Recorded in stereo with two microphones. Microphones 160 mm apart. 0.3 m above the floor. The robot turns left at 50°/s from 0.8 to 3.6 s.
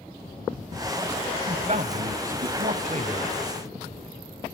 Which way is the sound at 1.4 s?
45° right.